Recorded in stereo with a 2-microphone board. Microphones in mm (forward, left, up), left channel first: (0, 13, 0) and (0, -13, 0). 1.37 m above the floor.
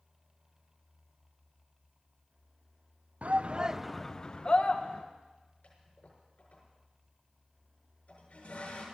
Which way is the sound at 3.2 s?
65° right (ahead or behind).